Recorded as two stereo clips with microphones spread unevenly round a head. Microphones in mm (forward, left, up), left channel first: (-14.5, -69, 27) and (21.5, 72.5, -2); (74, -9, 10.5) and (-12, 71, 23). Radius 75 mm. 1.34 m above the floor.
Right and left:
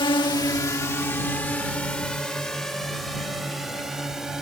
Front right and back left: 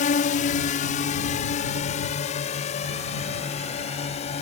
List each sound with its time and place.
0.0 s a drone: 45° right; by 4.4 s 10° right